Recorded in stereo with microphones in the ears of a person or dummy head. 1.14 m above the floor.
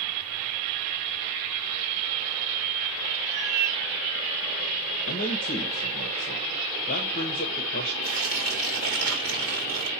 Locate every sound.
3.2 s a cat meowing: 15° right (ahead or behind), 3 m
5.1 s a man speaking: 40° left (ahead or behind), 1.3 m
8.0 s tearing paper: 70° right (ahead or behind), 2.5 m